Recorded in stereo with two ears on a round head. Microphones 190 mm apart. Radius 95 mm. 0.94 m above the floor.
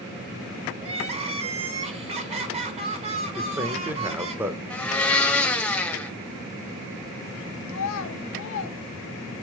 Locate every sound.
0.8 s crying: 30° right (ahead or behind), 0.7 m
3.4 s a man speaking: 10° right (ahead or behind), 0.5 m
4.7 s a blender: 5° left (ahead or behind), 0.5 m
7.7 s a child speaking: 65° left (ahead or behind), 0.7 m